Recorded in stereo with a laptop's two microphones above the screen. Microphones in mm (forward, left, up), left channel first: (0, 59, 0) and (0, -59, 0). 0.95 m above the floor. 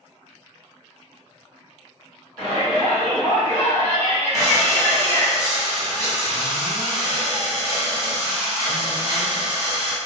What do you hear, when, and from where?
2.4 s a shout: 10° left (ahead or behind), 1.6 m; by 5.3 s 25° left (ahead or behind), 0.6 m
4.3 s breathing: 30° right (ahead or behind), 1.0 m